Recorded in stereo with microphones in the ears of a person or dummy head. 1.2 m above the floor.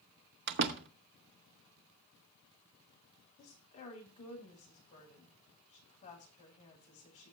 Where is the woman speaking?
35° left (ahead or behind), 9.5 m.